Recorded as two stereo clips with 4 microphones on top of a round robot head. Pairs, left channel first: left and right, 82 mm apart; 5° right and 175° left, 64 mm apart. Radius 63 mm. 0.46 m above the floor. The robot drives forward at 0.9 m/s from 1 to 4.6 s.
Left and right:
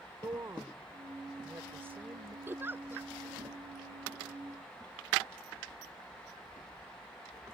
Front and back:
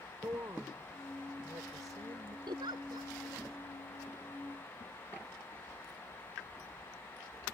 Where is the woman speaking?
135° right; by 2.4 s 155° right.